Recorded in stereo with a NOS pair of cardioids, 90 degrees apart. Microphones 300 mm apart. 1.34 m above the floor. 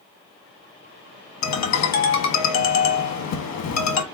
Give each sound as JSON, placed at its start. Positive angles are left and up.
{"t": 1.4, "sound": "a ringtone", "azimuth_deg": 65, "distance_m": 1.5}